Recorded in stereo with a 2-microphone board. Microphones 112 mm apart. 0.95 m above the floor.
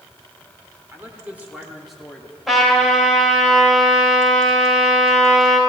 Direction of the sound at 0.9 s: 20° right (ahead or behind).